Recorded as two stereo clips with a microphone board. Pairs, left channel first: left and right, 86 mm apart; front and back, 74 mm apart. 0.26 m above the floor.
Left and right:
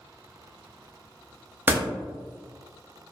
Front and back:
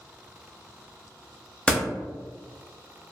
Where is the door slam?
55° right, 0.7 m.